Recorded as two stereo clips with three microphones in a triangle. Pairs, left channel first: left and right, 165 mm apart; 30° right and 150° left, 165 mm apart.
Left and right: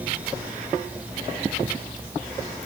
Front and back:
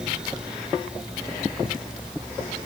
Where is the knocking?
No knocking in this recording.